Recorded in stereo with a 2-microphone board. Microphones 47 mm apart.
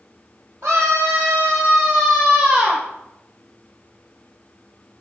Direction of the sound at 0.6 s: 60° right (ahead or behind).